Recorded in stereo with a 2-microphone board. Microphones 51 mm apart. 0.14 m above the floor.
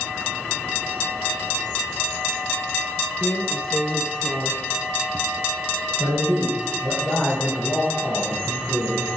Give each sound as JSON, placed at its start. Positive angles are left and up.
{"t": 3.2, "sound": "a drawer", "side_deg": -5, "distance_m": 1.2}
{"t": 6.0, "sound": "a man speaking", "side_deg": 20, "distance_m": 3.5}